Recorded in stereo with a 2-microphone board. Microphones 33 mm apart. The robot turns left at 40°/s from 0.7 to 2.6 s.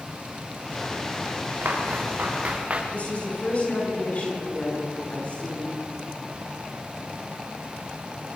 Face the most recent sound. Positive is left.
turn(degrees=45)  # may be behind; listen again after turning